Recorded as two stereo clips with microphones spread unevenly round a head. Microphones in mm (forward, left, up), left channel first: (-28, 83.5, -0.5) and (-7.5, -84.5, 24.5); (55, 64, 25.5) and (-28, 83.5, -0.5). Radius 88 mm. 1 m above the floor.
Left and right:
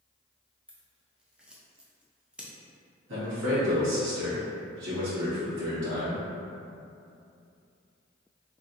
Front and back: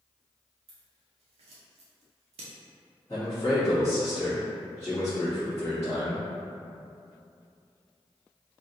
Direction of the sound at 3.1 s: 90° right.